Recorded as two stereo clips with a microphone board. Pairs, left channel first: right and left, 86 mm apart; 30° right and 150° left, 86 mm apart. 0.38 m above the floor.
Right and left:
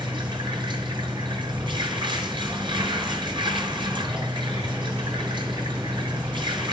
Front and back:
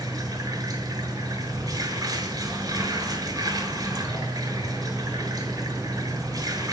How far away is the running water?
About 5.5 m.